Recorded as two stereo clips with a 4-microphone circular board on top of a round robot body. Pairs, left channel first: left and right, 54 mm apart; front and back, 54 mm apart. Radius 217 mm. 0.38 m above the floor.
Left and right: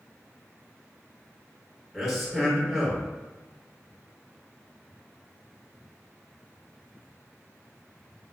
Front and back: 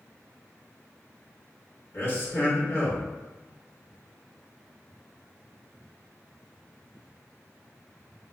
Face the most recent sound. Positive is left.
turn(degrees=0)